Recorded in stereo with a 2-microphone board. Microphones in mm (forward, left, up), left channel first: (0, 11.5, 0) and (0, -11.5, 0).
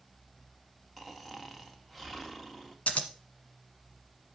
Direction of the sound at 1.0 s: 10° left (ahead or behind).